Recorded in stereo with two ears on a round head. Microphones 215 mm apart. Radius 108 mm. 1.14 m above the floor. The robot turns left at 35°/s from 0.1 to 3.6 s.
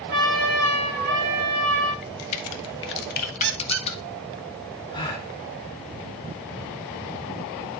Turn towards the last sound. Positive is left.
turn(degrees=20)  # may be behind; listen again after turning